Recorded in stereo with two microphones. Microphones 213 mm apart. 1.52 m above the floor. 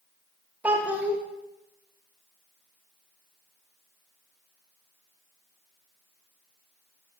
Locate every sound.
0.6 s a child speaking: 5° right (ahead or behind), 1.0 m